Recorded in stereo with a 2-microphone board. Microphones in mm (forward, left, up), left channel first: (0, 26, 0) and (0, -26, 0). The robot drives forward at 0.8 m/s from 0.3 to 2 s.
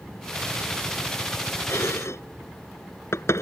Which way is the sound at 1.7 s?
60° left (ahead or behind).